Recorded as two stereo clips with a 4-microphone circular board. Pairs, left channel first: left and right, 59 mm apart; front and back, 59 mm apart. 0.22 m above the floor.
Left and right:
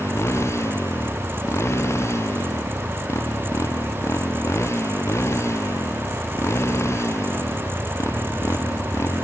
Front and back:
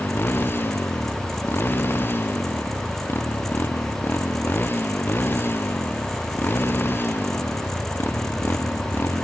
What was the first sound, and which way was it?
A motorcycle, 50° left.